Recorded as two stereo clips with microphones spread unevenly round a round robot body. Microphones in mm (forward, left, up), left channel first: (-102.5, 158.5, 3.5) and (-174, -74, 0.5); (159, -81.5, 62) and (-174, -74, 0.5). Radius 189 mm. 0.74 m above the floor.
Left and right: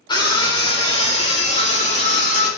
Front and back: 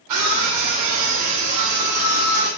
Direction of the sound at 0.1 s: 145° left.